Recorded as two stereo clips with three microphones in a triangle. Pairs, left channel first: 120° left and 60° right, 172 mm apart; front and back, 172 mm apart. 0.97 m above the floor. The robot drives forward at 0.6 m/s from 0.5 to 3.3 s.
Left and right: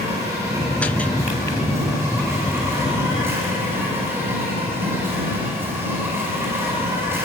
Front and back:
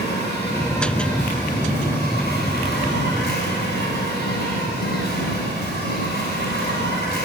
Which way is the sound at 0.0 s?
15° left.